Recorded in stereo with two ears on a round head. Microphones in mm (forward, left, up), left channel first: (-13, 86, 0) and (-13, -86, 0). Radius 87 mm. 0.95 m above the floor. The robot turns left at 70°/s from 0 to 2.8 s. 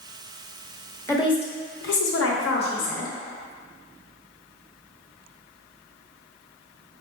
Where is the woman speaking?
165° left, 0.8 m; by 3.1 s 45° left, 0.8 m.